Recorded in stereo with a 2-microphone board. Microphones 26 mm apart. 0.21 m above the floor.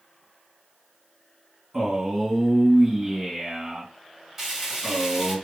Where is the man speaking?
20° right (ahead or behind), 1.9 m.